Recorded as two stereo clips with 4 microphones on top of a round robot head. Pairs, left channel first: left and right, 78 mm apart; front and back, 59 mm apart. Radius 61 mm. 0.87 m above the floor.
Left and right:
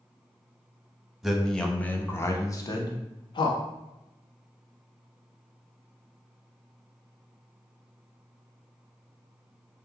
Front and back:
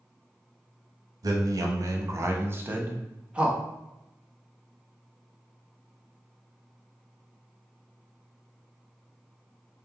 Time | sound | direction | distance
1.2 | a man speaking | straight behind | 0.9 m